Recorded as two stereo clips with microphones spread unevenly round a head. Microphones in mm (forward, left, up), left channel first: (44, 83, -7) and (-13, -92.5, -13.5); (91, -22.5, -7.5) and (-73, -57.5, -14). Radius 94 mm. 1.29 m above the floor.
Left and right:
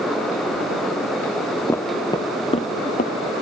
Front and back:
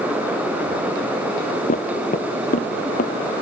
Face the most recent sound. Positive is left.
turn(degrees=40)